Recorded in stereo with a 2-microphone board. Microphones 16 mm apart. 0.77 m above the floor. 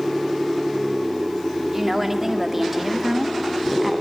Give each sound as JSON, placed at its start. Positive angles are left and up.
{"t": 1.7, "sound": "a woman speaking", "side_deg": -20, "distance_m": 2.0}